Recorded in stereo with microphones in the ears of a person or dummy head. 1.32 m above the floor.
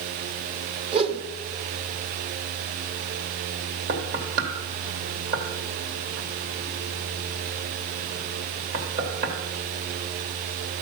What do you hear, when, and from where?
0.9 s a whoosh: 30° right (ahead or behind), 1.1 m
3.9 s knocking: 50° right (ahead or behind), 2.5 m